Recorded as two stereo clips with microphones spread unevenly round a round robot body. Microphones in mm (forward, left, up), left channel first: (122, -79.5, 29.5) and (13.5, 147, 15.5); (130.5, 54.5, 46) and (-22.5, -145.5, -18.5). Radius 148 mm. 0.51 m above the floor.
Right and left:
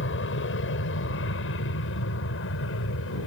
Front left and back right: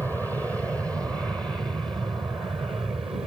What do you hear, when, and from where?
0.0 s an aircraft: 40° right; by 3.3 s 55° right